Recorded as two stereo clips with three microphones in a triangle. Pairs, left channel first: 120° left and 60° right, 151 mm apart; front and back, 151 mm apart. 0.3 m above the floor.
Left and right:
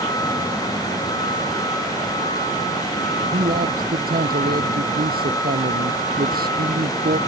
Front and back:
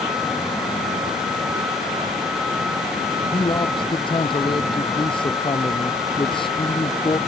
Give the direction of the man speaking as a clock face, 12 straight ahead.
2 o'clock.